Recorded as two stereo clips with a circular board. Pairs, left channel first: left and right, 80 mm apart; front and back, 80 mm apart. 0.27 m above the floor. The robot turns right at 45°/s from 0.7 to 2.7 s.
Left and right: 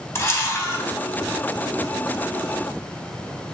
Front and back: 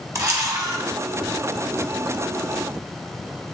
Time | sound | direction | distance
0.1 | a camera shutter | 140° left | 0.6 m